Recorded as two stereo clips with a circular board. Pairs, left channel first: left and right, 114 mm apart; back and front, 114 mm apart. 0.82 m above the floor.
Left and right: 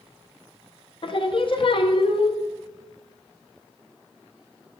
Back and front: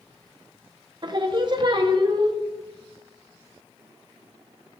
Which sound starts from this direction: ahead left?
Singing, at 1.0 s.